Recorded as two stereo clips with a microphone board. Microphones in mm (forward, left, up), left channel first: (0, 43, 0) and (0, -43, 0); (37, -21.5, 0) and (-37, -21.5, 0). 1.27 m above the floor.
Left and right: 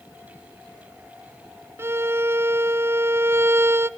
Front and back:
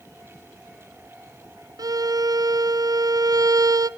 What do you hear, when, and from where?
1.8 s a violin: 150° right, 0.5 m